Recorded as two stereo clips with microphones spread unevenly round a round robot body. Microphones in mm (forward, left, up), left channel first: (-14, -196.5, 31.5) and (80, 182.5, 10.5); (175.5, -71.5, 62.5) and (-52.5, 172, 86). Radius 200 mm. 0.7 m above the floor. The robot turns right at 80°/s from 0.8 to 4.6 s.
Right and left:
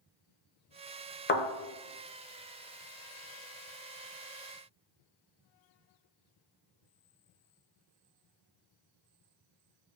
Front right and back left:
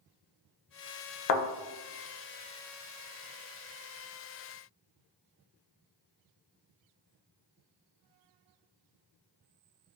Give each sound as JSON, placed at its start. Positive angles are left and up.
{"t": 1.3, "sound": "a thud", "azimuth_deg": -45, "distance_m": 0.7}